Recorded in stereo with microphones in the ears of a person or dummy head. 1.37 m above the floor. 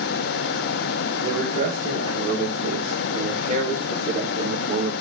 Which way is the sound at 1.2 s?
40° right (ahead or behind).